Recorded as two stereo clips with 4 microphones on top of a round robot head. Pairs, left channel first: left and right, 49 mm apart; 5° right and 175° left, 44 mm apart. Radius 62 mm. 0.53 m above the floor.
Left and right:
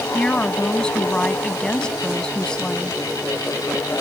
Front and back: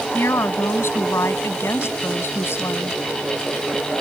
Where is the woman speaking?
15° left.